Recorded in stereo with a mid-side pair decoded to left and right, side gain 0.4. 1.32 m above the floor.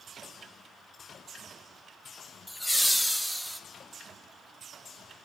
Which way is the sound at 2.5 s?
15° left.